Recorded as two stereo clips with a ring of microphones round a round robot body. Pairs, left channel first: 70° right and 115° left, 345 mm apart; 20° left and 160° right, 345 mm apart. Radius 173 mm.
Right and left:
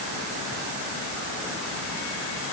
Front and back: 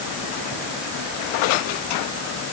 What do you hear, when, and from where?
Only background noise.